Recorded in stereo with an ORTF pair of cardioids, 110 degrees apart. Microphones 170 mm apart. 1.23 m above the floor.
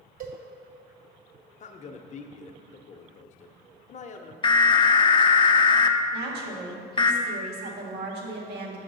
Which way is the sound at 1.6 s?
40° left.